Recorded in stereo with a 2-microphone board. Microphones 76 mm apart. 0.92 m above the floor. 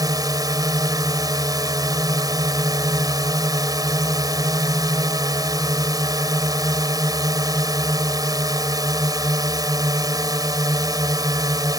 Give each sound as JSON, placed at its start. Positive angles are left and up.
{"t": 0.0, "sound": "a drone", "side_deg": -55}